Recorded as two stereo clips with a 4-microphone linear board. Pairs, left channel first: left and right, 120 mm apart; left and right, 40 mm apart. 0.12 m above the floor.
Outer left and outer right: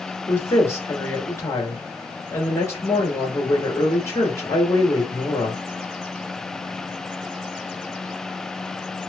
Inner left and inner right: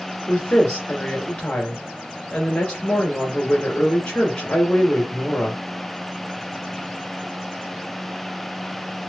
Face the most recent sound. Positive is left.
turn(degrees=25)  # may be behind; listen again after turning